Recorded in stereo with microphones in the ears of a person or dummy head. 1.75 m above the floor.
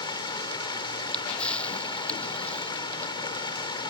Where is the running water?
25° left (ahead or behind).